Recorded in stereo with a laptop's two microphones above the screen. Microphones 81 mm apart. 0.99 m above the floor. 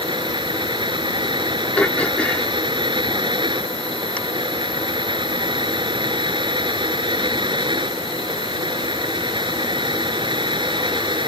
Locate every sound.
0.0 s a fan: 80° right
1.8 s throat clearing: 15° left (ahead or behind)